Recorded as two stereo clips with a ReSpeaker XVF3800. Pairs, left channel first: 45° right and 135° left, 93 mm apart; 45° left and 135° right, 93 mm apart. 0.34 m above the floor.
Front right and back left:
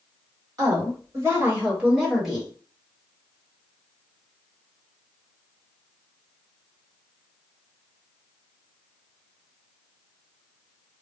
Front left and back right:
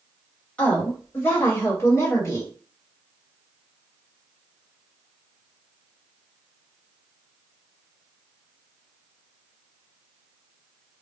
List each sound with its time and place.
0.6 s a woman speaking: 115° left, 1.7 m; by 2.5 s 40° left, 1.5 m